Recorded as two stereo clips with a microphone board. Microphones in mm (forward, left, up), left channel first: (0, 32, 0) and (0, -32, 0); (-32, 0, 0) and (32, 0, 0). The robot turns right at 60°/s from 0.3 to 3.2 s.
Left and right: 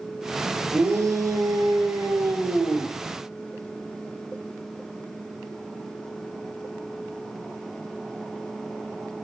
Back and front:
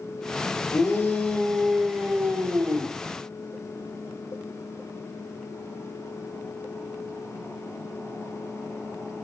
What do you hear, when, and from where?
0.7 s a shout: 140° right, 7 m; by 2.9 s 5° right, 7 m